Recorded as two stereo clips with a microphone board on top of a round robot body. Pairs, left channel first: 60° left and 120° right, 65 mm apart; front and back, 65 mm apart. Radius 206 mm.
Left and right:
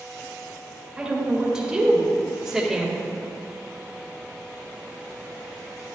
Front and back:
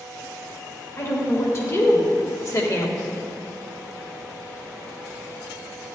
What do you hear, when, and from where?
1.0 s a woman speaking: 45° right, 2.5 m; by 3.0 s 35° right, 1.1 m